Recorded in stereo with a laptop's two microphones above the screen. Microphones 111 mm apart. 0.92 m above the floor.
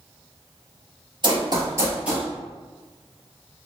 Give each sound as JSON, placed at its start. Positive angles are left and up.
{"t": 1.2, "sound": "running footsteps", "side_deg": -45, "distance_m": 1.2}